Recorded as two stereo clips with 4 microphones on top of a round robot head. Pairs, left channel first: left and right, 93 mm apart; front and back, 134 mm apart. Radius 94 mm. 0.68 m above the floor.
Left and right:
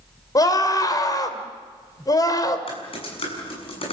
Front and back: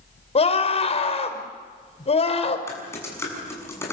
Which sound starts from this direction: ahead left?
A scream, at 0.3 s.